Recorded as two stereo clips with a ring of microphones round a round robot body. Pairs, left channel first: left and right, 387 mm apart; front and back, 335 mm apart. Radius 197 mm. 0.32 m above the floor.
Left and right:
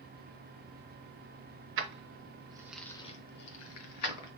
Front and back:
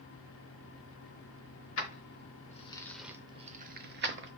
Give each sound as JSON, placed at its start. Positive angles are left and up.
{"t": 1.8, "sound": "keys jangling", "azimuth_deg": -40, "distance_m": 0.8}